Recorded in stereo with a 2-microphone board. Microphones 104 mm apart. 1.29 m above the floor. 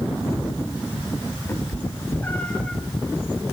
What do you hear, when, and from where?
1.5 s a cat meowing: 25° left (ahead or behind), 1.3 m; by 2.8 s 5° left (ahead or behind), 1.2 m